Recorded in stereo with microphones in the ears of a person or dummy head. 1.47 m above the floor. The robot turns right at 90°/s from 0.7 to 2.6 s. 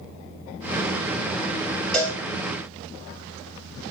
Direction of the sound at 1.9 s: 5° left (ahead or behind).